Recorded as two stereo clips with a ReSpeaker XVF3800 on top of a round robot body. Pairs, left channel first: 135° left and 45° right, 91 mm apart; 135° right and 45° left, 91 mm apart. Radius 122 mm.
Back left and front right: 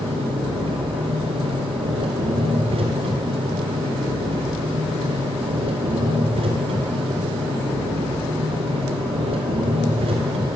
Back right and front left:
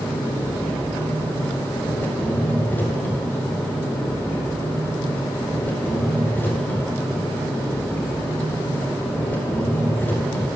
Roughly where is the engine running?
Ahead right.